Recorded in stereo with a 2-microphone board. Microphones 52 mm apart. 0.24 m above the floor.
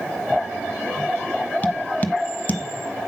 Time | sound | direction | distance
1.6 | tapping | 35° left (ahead or behind) | 1.0 m